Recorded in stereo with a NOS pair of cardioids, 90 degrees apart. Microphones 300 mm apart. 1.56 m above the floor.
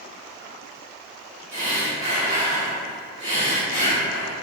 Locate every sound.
1.5 s breathing: 25° right, 1.1 m